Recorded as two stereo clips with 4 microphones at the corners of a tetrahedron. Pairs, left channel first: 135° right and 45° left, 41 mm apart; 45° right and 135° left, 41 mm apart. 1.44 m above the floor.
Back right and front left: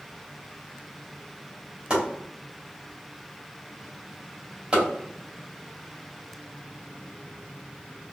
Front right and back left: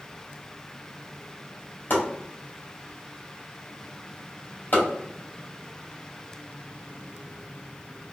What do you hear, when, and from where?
1.9 s chopping: 15° right, 2.5 m